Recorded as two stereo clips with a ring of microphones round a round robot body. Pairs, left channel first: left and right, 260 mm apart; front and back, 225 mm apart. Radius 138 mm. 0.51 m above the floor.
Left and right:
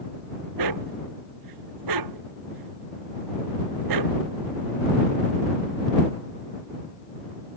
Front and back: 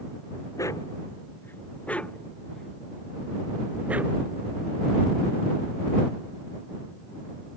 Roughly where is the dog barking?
Right.